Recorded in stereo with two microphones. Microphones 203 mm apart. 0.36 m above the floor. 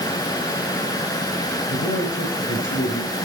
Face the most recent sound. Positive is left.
turn(degrees=80)